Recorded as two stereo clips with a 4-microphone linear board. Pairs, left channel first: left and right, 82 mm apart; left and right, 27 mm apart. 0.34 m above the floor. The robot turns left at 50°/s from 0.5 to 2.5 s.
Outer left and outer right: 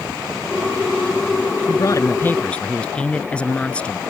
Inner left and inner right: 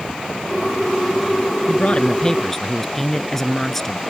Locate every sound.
1.7 s a man speaking: 55° left; by 4.0 s 15° left